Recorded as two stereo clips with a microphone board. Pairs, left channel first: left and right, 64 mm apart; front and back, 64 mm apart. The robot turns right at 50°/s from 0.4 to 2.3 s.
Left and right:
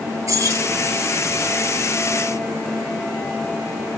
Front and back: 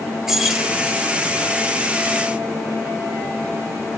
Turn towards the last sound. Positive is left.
turn(degrees=-5)